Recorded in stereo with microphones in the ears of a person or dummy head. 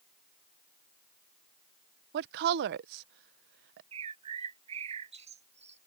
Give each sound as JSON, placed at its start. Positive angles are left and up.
{"t": 2.1, "sound": "a woman speaking", "side_deg": -60}
{"t": 3.9, "sound": "a bird", "side_deg": -30}